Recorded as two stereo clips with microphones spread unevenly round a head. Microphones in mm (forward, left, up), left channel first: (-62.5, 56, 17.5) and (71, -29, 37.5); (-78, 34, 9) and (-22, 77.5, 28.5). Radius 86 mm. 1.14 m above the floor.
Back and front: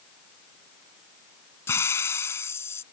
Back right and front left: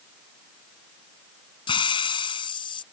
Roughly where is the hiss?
Behind right.